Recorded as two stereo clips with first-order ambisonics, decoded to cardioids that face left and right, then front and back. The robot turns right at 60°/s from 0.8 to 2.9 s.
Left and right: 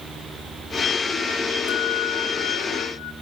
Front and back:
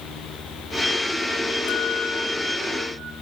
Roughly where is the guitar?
Ahead left.